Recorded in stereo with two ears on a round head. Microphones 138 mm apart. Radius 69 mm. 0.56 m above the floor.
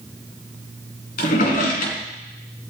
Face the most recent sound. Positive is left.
turn(degrees=60)  # may be behind; listen again after turning